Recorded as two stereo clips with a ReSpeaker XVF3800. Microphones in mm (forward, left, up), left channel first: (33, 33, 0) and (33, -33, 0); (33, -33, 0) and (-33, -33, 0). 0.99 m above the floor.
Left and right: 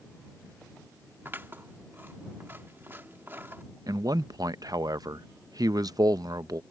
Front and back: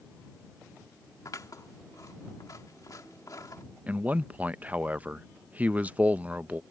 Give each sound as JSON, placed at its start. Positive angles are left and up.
{"t": 1.2, "sound": "scissors", "azimuth_deg": -30}
{"t": 3.9, "sound": "a man speaking", "azimuth_deg": -110}